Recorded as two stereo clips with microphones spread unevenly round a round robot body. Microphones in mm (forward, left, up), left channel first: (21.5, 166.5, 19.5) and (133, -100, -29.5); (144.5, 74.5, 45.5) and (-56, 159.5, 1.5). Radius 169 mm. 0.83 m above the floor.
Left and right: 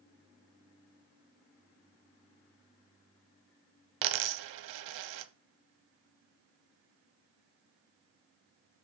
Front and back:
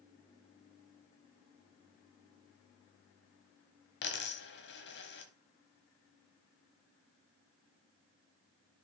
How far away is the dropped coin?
About 1.1 m.